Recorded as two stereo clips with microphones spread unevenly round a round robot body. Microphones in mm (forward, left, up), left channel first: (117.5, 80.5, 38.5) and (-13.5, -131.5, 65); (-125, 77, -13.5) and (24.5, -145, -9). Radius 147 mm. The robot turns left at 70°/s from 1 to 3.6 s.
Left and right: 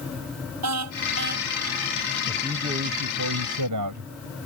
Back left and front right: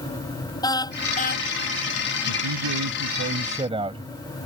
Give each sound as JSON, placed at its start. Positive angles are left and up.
{"t": 0.6, "sound": "a car horn", "azimuth_deg": -160}
{"t": 2.3, "sound": "a man speaking", "azimuth_deg": -35}